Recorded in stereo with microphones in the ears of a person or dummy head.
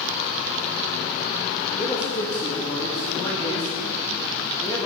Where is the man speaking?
15° left (ahead or behind), 1.7 m.